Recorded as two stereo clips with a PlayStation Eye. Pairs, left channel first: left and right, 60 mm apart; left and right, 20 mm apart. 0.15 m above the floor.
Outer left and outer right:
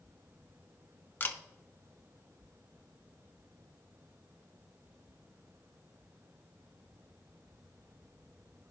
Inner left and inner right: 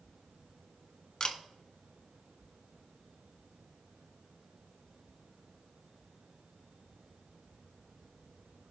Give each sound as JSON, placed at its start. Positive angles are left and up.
{"t": 1.2, "sound": "a camera shutter", "side_deg": 35, "distance_m": 1.1}